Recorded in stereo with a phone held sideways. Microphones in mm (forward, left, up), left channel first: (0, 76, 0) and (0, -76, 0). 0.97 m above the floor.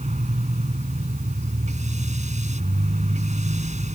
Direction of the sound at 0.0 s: 50° right (ahead or behind).